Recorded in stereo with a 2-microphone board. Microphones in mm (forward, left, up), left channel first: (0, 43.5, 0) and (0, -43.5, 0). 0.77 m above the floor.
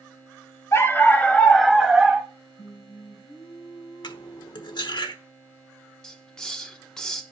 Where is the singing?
85° left, 3.5 m.